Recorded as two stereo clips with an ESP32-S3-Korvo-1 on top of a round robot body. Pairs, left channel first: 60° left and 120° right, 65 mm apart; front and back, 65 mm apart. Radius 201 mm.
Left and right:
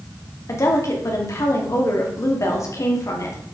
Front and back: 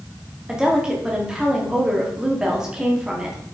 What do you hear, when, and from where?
0.5 s a woman speaking: 100° left, 1.8 m